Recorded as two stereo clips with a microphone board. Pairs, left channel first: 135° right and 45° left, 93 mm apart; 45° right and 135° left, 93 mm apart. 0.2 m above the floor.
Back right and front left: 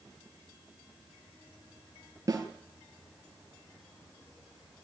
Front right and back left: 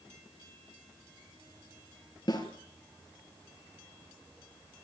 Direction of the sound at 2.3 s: 5° right.